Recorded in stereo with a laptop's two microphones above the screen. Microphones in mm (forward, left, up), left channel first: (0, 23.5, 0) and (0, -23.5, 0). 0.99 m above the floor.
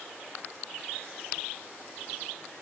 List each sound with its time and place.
Only background noise.